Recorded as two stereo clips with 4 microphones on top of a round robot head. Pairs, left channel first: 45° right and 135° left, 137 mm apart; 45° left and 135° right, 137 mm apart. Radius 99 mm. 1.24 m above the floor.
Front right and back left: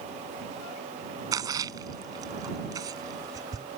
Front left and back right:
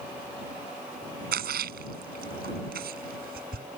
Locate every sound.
1.3 s a splash: 155° right